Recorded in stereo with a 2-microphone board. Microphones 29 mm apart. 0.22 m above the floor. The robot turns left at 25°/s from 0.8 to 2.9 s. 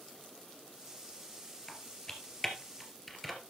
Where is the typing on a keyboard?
35° left (ahead or behind), 2.5 m; by 3.4 s 5° left (ahead or behind), 2.5 m.